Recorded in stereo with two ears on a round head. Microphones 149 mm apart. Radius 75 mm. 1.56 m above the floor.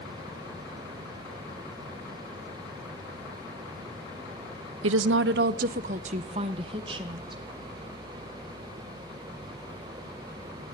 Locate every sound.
4.8 s a woman speaking: 80° right, 0.7 m; by 7.4 s 25° right (ahead or behind), 2 m